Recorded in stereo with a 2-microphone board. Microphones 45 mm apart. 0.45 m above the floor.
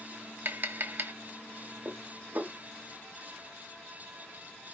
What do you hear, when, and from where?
0.5 s tapping: 50° right (ahead or behind), 0.7 m
1.9 s dishes clattering: 60° right (ahead or behind), 1.0 m